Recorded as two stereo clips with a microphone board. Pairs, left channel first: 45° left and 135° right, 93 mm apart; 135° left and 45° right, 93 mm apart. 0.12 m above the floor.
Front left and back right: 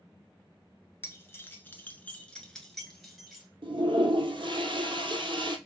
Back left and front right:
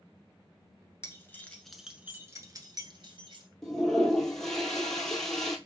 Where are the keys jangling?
95° left, 1.0 m; by 3.5 s 50° right, 1.5 m.